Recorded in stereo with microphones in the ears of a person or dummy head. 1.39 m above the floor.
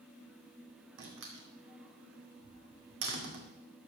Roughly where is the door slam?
Right.